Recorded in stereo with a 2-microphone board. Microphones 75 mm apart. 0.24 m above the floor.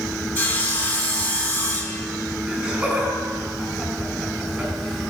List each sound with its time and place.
0.3 s sawing: 25° left (ahead or behind), 1.4 m
2.5 s laughter: 25° right (ahead or behind), 4 m